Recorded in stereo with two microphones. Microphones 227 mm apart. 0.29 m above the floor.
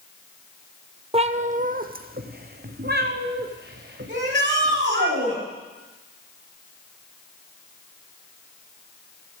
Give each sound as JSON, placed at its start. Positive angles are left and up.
{"t": 1.1, "sound": "a cat meowing", "side_deg": -25, "distance_m": 0.5}
{"t": 4.1, "sound": "a shout", "side_deg": -55, "distance_m": 6.5}